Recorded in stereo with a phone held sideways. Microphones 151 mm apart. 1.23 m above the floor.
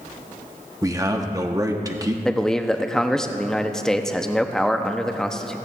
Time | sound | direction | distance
0.8 | a man speaking | 25° right (ahead or behind) | 1.0 m
2.2 | a man speaking | 5° left (ahead or behind) | 0.7 m